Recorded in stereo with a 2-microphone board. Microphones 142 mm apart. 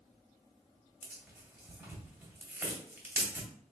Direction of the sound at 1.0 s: 15° right (ahead or behind).